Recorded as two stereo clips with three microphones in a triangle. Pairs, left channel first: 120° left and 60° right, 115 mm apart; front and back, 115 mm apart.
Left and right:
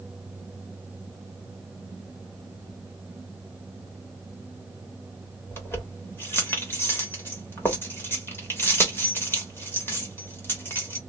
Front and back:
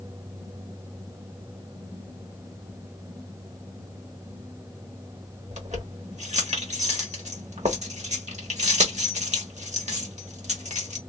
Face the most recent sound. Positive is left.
turn(degrees=-170)